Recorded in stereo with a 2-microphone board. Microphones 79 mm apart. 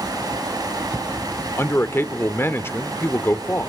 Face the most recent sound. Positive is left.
turn(degrees=30)  # may be behind; listen again after turning